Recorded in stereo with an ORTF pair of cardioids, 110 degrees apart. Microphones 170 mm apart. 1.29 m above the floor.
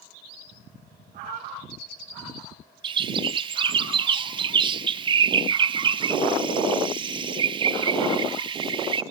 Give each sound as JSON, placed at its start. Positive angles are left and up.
{"t": 1.1, "sound": "a cat meowing", "azimuth_deg": -50, "distance_m": 5.5}
{"t": 2.8, "sound": "a bird", "azimuth_deg": -30, "distance_m": 0.6}